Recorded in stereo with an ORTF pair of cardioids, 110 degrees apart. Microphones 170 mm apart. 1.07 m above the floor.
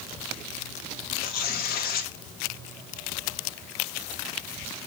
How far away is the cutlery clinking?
No cutlery clinking in this recording.